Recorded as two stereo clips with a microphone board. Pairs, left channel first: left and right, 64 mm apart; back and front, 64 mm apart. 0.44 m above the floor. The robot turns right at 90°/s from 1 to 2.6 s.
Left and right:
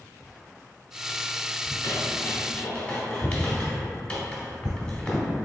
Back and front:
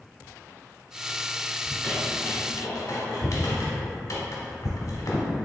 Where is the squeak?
80° left, 1.0 m; by 5.3 s 160° left, 1.0 m.